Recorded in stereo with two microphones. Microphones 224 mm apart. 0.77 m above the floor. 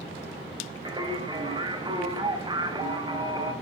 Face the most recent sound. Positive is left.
turn(degrees=-20)  # may be behind; listen again after turning